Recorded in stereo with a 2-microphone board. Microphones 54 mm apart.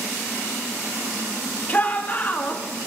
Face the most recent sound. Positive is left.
turn(degrees=30)  # may be behind; listen again after turning